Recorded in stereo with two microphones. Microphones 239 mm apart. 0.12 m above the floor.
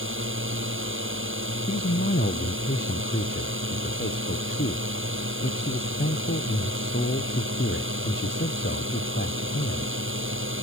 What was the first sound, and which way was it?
A drone, 55° right (ahead or behind).